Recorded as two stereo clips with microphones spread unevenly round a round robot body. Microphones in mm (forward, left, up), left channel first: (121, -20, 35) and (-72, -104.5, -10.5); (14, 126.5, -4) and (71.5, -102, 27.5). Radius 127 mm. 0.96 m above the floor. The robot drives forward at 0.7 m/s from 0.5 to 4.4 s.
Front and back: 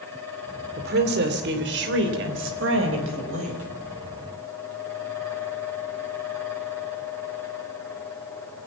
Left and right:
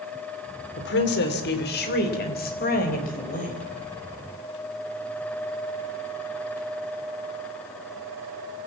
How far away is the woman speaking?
About 2.5 m.